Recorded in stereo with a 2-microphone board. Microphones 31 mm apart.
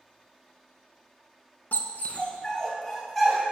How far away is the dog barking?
About 0.6 m.